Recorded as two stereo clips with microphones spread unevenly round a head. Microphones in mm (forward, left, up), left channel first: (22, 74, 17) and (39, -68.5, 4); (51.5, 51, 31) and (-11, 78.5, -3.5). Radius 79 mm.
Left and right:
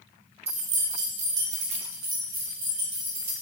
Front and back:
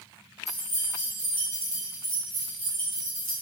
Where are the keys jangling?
35° right, 0.8 m; by 3.3 s 135° right, 2.5 m.